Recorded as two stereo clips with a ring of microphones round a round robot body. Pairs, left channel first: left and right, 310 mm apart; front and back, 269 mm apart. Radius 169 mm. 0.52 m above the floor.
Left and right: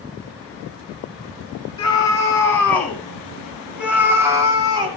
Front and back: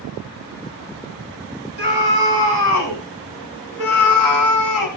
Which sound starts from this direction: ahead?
A scream, at 1.8 s.